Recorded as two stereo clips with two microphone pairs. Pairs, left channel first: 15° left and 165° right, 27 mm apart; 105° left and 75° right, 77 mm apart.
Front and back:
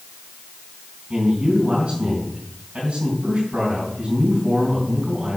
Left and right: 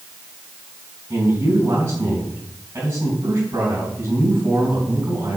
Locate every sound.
1.1 s a man speaking: 130° right, 3 m